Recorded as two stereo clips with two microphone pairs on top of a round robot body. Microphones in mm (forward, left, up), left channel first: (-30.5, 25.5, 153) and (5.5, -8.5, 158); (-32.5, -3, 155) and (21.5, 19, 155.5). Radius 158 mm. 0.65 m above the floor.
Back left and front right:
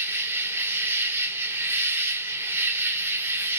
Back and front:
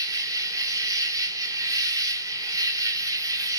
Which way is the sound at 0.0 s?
Straight ahead.